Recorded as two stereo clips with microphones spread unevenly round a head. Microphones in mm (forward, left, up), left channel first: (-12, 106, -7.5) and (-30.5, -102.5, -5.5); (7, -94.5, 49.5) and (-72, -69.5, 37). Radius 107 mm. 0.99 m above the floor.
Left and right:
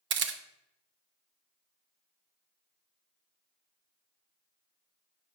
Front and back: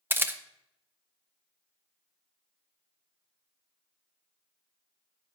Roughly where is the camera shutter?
Behind right.